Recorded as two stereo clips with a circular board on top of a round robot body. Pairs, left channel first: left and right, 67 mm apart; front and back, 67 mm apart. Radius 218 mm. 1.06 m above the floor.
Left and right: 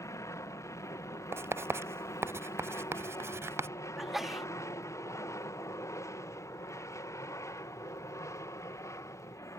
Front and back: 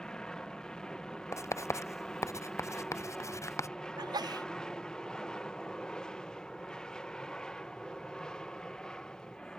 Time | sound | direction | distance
0.0 | an aircraft | 75° left | ?
1.3 | writing | 40° right | ?
4.0 | a sneeze | 175° right | ?